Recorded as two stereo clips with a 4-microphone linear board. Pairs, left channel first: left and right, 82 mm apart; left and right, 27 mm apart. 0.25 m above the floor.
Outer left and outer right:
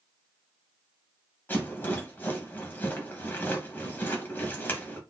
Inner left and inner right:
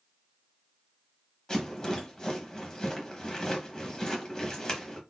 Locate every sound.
1.5 s a rattle: 25° left (ahead or behind), 1.0 m